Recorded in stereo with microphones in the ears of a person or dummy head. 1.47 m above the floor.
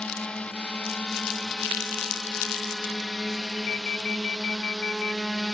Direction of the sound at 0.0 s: 5° left (ahead or behind).